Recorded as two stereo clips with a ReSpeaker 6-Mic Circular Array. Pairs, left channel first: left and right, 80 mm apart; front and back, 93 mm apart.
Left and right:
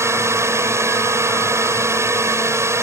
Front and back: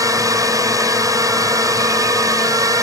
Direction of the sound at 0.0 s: 140° right.